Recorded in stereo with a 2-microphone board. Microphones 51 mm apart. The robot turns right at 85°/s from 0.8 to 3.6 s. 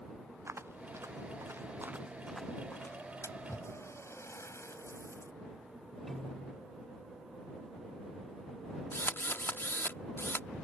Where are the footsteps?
60° right (ahead or behind); by 3.0 s 50° left (ahead or behind).